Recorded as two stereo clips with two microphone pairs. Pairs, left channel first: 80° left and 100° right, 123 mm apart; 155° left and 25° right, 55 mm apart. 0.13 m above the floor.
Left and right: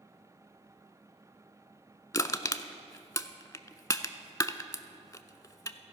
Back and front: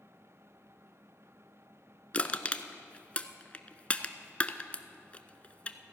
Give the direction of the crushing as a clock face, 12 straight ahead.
8 o'clock.